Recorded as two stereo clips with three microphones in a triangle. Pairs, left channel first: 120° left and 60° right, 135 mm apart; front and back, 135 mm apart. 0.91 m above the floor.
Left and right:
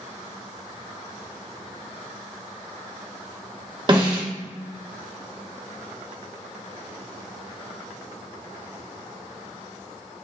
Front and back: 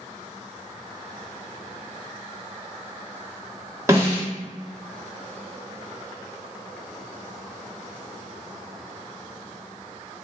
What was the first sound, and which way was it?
A snare drum, 110° right.